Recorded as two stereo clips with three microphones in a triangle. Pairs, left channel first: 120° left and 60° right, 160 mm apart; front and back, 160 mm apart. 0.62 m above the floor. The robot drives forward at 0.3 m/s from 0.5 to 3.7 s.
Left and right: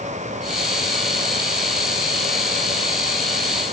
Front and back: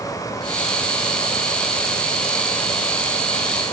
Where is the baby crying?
No baby crying in this recording.